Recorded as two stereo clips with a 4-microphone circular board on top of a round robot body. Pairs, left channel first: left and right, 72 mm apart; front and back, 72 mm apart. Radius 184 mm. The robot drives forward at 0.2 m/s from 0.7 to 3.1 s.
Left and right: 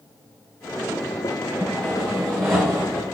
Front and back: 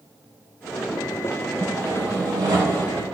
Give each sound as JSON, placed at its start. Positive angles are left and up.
{"t": 1.6, "sound": "sawing", "azimuth_deg": 170, "distance_m": 3.0}